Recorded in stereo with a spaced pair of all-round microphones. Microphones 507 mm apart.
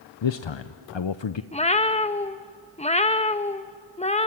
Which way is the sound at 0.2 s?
60° left (ahead or behind).